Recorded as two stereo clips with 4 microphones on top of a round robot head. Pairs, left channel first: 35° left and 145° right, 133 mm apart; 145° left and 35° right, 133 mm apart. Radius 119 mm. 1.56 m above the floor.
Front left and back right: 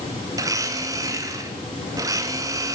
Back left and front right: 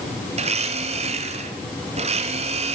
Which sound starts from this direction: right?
A blender, at 0.3 s.